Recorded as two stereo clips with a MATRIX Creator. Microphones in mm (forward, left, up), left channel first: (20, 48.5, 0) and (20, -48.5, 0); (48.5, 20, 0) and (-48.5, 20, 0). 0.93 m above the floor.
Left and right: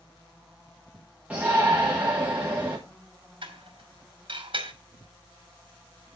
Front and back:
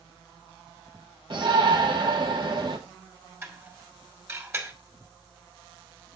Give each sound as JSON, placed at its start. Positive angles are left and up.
{"t": 1.3, "sound": "a shout", "azimuth_deg": -165, "distance_m": 1.4}
{"t": 3.4, "sound": "dishes clattering", "azimuth_deg": -120, "distance_m": 2.5}